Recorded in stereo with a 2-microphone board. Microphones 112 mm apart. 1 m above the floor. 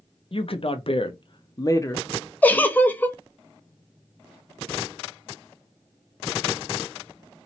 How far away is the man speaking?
About 0.9 m.